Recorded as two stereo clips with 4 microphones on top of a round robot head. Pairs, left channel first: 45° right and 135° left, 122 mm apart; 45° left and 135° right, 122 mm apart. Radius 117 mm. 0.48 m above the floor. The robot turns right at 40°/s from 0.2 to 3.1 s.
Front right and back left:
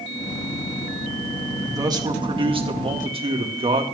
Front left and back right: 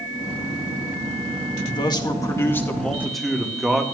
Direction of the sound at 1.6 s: 75° left.